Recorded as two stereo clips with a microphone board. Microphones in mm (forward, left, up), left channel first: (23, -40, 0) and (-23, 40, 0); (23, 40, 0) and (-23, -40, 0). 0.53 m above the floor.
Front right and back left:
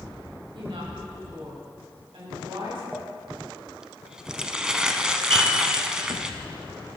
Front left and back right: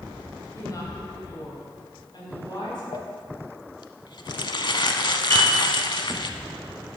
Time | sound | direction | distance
0.5 | a woman speaking | 115° left | 3 m
2.9 | crumpling | 40° left | 0.7 m
5.3 | a piano | 130° left | 4 m